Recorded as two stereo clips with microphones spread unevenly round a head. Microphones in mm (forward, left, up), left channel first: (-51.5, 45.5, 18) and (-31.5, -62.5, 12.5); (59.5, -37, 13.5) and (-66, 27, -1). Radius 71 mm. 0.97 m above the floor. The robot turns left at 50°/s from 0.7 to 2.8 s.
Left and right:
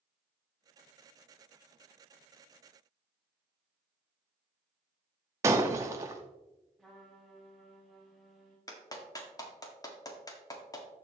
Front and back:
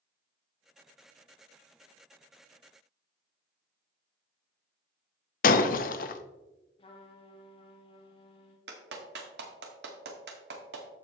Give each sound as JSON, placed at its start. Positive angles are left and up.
{"t": 5.4, "sound": "breaking glass", "azimuth_deg": -5, "distance_m": 0.6}
{"t": 6.8, "sound": "a trumpet", "azimuth_deg": 15, "distance_m": 1.2}
{"t": 8.7, "sound": "a clap", "azimuth_deg": 160, "distance_m": 1.5}